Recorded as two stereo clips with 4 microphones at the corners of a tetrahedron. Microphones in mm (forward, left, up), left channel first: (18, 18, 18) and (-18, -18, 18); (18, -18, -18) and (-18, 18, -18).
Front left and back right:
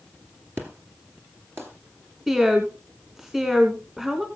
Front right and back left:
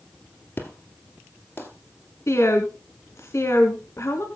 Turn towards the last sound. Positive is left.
turn(degrees=-55)